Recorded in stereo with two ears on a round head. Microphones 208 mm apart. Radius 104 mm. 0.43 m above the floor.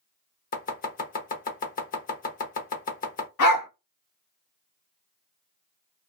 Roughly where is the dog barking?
Left.